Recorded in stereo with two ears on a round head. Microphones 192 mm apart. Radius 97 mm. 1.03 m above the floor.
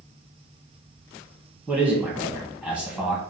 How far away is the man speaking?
About 1.1 m.